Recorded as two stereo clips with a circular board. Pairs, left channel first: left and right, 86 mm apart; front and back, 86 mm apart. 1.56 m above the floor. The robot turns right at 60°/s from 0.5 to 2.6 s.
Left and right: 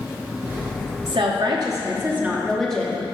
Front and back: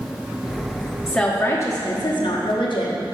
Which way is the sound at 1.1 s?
85° right.